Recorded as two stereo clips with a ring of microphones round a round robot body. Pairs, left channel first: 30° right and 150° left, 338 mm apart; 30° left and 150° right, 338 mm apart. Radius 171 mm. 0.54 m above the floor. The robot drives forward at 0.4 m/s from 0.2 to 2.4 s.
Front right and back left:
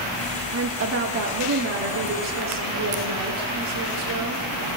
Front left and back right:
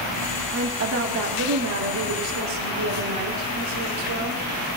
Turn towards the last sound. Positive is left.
turn(degrees=180)